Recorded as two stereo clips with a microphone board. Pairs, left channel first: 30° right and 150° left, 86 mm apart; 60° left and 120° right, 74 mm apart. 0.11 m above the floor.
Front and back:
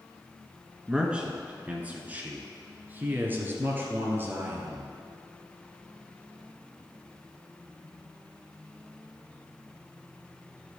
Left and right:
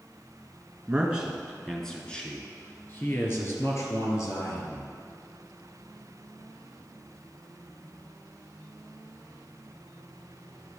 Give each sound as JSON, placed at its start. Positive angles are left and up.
{"t": 0.9, "sound": "a man speaking", "azimuth_deg": -145, "distance_m": 1.3}